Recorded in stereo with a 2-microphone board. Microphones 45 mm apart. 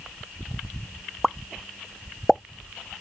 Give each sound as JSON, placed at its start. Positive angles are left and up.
{"t": 1.2, "sound": "a pop", "side_deg": 0}